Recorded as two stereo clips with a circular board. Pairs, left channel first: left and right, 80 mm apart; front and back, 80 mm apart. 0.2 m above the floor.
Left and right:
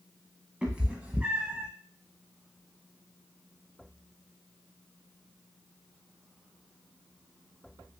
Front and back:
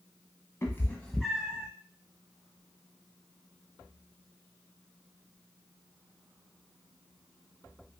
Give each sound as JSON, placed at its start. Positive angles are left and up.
{"t": 0.6, "sound": "a cat meowing", "azimuth_deg": -25, "distance_m": 0.8}